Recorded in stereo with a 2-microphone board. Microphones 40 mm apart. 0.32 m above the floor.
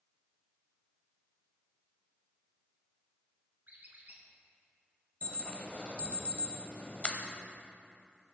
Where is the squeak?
45° right (ahead or behind), 1.4 m.